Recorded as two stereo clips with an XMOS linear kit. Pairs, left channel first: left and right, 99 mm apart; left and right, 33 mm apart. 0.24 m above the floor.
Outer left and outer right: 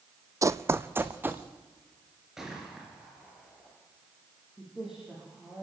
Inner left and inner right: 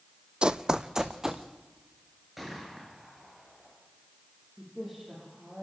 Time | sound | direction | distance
0.4 | running footsteps | 35° right (ahead or behind) | 0.5 m
2.4 | a gunshot | 5° right (ahead or behind) | 4.5 m
4.6 | a woman speaking | 5° right (ahead or behind) | 8 m